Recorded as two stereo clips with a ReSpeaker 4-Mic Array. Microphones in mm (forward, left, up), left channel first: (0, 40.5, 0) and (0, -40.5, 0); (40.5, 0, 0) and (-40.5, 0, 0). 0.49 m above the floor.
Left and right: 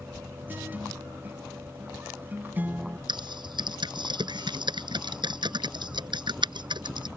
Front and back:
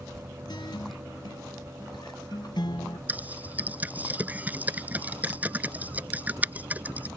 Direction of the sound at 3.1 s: 110° right.